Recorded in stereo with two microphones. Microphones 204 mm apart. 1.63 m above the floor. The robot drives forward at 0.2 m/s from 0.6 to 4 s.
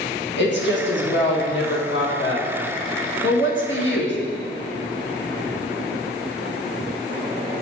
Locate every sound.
0.4 s a woman speaking: 60° left (ahead or behind), 1.4 m; by 4.2 s 65° left (ahead or behind), 1.4 m